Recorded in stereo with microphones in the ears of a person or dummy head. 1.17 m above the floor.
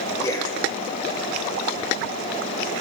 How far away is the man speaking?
About 0.8 m.